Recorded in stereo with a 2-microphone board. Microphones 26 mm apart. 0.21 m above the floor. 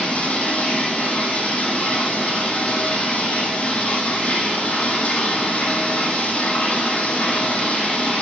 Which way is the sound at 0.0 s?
75° left (ahead or behind).